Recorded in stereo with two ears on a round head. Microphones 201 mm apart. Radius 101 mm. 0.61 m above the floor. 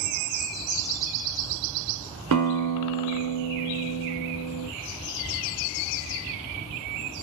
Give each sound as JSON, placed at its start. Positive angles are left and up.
{"t": 2.3, "sound": "a guitar", "side_deg": -85, "distance_m": 0.7}